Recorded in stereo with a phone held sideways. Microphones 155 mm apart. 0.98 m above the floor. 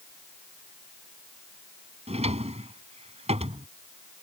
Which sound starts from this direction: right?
A drawer, at 2.1 s.